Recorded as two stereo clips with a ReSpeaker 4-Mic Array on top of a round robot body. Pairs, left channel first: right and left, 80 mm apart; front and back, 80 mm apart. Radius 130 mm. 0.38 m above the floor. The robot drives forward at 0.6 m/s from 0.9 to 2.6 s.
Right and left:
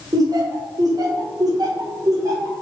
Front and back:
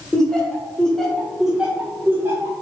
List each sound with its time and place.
0.1 s laughter: 80° left, 1.3 m; by 2.5 s 130° left, 1.5 m